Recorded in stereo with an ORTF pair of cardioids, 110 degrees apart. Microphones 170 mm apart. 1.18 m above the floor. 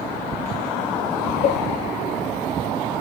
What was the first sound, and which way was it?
A cowbell, 70° left.